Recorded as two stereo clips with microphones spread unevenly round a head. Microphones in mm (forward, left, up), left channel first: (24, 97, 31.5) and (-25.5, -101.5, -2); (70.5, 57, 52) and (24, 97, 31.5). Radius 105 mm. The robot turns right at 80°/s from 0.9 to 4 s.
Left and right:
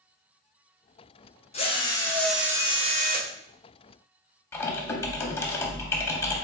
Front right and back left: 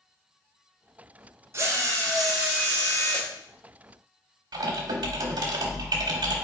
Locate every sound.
1.5 s a drill: 90° left, 0.7 m; by 3.3 s 130° right, 0.7 m
4.5 s typing on a keyboard: 145° left, 0.7 m